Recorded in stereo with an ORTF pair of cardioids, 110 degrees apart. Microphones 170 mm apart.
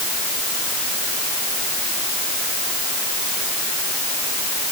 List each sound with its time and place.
Only background noise.